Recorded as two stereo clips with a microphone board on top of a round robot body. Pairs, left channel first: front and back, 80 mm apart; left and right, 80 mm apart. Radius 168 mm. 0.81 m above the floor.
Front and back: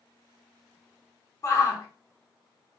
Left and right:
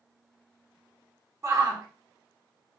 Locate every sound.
1.4 s a shout: 45° right, 0.9 m